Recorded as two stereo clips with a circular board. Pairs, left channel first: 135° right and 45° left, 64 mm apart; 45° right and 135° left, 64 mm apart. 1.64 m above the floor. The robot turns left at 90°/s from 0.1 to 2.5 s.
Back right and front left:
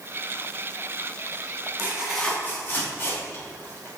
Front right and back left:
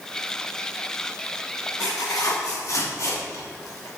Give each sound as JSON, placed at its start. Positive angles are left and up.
{"t": 1.8, "sound": "tearing paper", "azimuth_deg": -15, "distance_m": 3.0}